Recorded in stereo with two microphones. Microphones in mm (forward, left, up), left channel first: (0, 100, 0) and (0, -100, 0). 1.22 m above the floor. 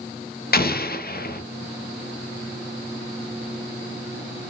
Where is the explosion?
50° left (ahead or behind), 0.5 m.